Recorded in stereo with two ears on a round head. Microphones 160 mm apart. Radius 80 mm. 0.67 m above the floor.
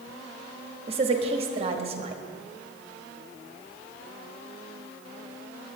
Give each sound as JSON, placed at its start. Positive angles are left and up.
{"t": 0.9, "sound": "a woman speaking", "side_deg": -35, "distance_m": 1.0}